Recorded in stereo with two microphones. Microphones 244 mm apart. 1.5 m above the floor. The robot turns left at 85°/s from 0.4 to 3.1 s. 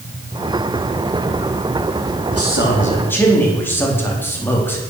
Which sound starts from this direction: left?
A man speaking, at 2.3 s.